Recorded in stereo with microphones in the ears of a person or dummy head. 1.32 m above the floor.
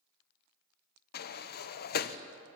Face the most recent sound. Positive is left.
turn(degrees=50)  # may be behind; listen again after turning